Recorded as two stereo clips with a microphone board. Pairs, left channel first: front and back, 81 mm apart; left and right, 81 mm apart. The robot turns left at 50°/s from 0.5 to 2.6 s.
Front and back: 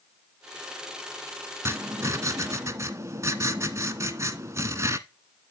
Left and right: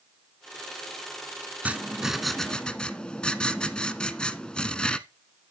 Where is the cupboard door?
No cupboard door in this recording.